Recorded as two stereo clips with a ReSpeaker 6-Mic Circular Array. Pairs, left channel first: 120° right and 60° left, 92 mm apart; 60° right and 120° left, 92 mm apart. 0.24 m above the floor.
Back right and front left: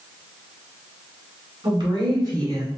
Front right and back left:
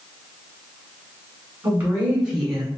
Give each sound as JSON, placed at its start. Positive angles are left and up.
{"t": 1.6, "sound": "a woman speaking", "azimuth_deg": 60, "distance_m": 2.0}